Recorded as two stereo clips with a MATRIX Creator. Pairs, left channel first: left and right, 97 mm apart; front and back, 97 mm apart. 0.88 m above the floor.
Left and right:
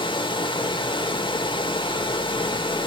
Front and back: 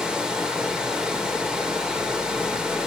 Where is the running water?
100° left, 0.8 m.